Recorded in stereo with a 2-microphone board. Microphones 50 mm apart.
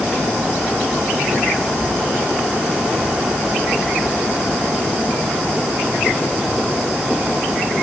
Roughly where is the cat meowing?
I don't hear a cat meowing.